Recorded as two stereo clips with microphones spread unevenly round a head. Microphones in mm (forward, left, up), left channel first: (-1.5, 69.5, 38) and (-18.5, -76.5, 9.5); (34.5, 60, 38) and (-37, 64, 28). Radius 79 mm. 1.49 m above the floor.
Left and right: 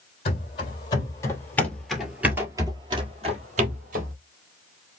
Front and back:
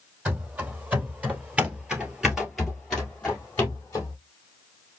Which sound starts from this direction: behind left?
Running footsteps, at 0.2 s.